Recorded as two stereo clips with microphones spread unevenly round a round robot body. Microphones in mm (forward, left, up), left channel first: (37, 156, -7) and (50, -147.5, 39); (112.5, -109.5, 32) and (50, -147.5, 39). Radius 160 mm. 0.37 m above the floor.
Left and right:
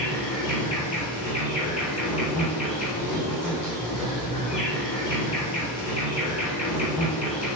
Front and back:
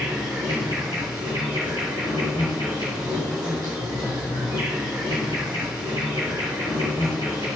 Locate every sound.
0.0 s an insect: 160° left, 2.5 m